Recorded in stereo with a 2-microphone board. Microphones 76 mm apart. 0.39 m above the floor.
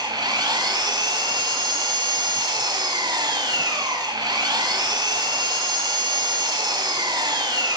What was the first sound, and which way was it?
An engine running, 75° right (ahead or behind).